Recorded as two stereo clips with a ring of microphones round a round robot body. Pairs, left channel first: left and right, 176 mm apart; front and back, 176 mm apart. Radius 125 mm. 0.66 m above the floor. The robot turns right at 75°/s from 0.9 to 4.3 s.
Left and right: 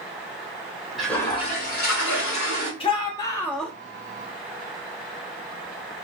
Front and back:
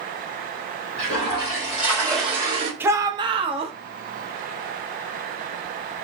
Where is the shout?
110° left, 0.5 m; by 3.7 s straight behind, 0.5 m.